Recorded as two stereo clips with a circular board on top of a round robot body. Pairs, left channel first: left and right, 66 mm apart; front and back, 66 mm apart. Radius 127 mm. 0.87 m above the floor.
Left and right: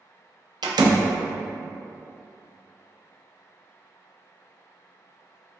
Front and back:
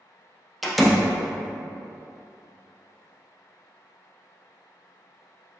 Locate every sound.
0.6 s a door slam: 90° right, 0.5 m